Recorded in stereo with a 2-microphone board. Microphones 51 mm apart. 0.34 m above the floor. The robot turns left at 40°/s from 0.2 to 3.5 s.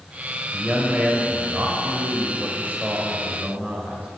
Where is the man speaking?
15° right, 1.2 m; by 4.1 s 135° right, 1.2 m.